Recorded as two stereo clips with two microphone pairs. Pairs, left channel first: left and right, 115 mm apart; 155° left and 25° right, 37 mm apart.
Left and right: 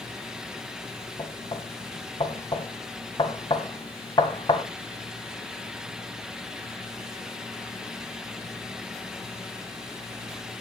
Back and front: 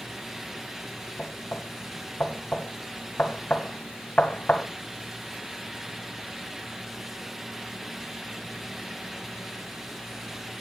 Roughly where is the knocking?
Behind left.